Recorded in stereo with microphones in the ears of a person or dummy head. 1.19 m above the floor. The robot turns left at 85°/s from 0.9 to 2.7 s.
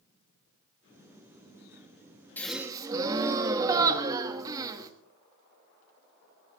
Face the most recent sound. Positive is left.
turn(degrees=-20)  # may be behind; listen again after turning